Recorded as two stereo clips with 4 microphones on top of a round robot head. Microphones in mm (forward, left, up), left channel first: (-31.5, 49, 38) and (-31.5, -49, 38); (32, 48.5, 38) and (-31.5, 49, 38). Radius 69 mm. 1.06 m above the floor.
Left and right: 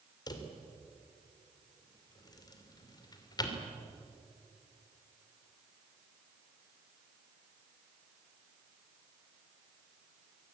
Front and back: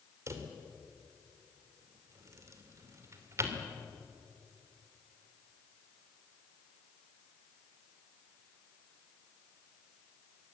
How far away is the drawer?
About 2.5 m.